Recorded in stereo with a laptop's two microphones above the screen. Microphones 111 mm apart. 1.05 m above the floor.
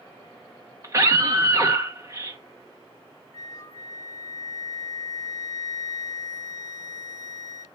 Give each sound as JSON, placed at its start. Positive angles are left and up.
{"t": 0.8, "sound": "a scream", "side_deg": -30, "distance_m": 1.1}
{"t": 3.3, "sound": "a flute", "side_deg": 30, "distance_m": 1.0}